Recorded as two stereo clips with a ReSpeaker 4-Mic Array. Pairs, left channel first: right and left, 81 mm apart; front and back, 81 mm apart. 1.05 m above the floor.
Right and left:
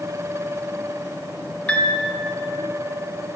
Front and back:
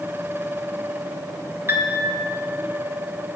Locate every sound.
1.7 s a piano: 150° right, 0.6 m